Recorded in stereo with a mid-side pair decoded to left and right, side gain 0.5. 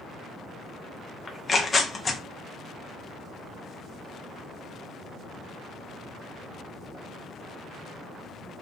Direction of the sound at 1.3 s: 30° left.